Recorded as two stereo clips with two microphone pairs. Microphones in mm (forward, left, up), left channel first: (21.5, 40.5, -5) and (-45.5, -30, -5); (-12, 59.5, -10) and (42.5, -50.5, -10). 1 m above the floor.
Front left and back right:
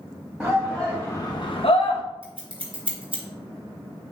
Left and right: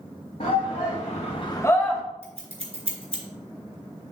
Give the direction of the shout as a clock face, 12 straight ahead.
7 o'clock.